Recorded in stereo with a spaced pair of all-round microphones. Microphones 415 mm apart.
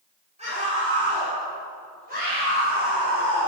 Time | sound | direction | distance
0.4 | a scream | 15° right (ahead or behind) | 8 m